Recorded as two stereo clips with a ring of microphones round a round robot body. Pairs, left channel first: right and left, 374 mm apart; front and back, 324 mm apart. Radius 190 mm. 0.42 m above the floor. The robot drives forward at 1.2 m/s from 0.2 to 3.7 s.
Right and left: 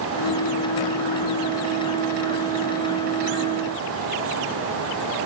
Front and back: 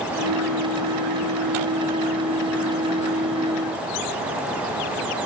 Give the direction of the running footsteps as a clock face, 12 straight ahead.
I don't hear running footsteps.